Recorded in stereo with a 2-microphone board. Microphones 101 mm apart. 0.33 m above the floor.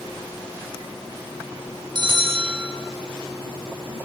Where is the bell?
50° right (ahead or behind), 4 m.